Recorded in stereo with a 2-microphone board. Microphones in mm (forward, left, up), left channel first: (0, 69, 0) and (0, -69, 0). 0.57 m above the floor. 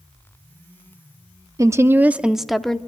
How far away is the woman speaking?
About 0.6 m.